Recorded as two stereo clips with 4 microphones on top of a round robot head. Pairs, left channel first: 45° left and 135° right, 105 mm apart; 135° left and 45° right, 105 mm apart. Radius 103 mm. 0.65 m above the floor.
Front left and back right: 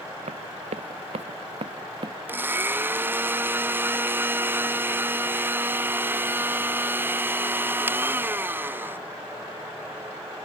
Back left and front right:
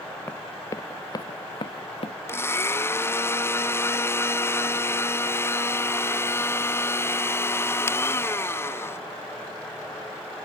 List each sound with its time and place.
0.3 s running footsteps: 155° right; by 2.2 s 175° left
2.3 s a blender: 175° left